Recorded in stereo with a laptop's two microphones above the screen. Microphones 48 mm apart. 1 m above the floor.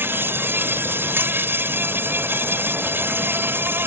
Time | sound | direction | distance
0.0 | an insect | 50° right (ahead or behind) | ?